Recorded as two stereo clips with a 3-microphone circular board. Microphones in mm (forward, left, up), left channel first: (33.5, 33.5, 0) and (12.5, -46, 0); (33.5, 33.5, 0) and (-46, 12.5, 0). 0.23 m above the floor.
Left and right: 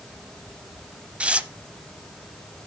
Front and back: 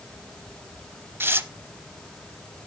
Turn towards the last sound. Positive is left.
turn(degrees=-160)